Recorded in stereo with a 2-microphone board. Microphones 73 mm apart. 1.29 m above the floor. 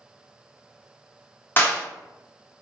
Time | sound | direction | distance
1.6 | a clap | 30° left (ahead or behind) | 1.5 m